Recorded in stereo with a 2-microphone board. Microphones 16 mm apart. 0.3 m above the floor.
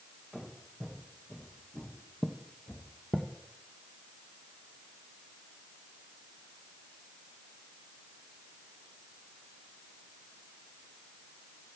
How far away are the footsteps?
About 2 m.